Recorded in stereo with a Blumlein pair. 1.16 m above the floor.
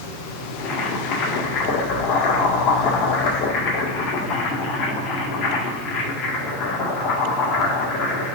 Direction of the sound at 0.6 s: 35° left.